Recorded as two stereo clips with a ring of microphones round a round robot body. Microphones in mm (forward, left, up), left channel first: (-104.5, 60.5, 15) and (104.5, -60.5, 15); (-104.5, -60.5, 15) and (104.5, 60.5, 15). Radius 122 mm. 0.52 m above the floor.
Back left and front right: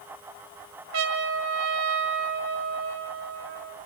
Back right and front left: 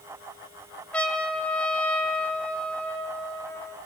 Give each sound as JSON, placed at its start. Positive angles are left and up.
{"t": 0.9, "sound": "a trumpet", "azimuth_deg": -65, "distance_m": 2.0}